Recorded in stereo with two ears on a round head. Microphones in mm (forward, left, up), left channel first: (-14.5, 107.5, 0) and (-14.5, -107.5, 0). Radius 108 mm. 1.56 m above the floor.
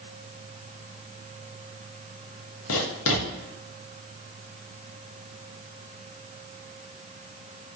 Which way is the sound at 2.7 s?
65° left (ahead or behind).